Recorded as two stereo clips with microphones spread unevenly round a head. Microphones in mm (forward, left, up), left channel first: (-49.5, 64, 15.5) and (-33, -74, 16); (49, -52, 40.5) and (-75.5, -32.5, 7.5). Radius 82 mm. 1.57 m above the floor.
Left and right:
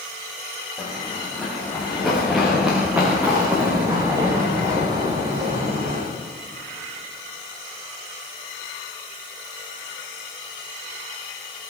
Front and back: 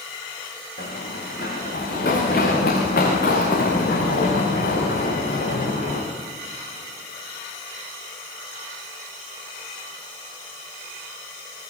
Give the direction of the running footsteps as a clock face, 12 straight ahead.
12 o'clock.